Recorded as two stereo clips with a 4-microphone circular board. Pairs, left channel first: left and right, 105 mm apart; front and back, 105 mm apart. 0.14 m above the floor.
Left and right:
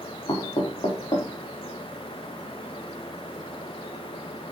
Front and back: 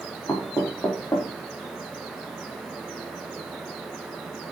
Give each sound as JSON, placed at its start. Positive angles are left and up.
{"t": 0.3, "sound": "knocking", "azimuth_deg": 55, "distance_m": 4.5}